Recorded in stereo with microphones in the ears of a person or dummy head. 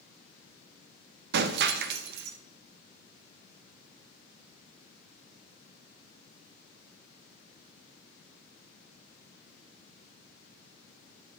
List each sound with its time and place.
1.3 s breaking glass: 60° right (ahead or behind), 0.6 m